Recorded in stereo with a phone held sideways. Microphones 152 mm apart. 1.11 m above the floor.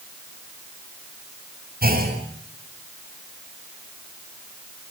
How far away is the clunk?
About 7 m.